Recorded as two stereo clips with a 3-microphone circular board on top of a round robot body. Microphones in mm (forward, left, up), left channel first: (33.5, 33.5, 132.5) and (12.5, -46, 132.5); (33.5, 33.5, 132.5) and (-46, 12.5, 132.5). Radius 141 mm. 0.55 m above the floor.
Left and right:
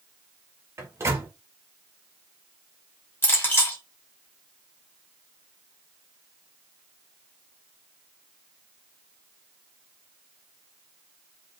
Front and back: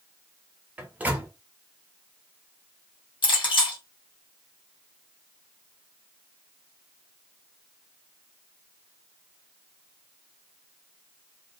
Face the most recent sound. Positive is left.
turn(degrees=10)